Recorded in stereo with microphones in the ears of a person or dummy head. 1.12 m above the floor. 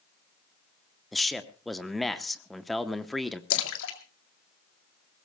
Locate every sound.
1.1 s a man speaking: centre (ahead or behind), 0.8 m
3.5 s a splash: 70° left (ahead or behind), 2 m